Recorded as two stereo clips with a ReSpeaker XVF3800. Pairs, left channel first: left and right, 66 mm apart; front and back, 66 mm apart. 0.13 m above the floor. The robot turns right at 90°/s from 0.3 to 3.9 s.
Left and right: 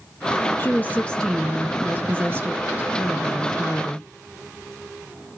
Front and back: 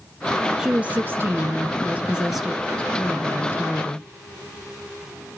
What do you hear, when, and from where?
0.6 s a woman speaking: 105° left, 1.2 m; by 4.1 s 45° left, 1.2 m